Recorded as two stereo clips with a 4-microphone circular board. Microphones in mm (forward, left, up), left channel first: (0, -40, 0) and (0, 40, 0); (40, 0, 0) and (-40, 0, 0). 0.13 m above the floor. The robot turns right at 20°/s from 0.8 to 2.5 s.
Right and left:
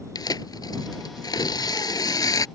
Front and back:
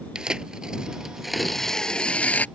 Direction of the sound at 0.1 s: 100° right.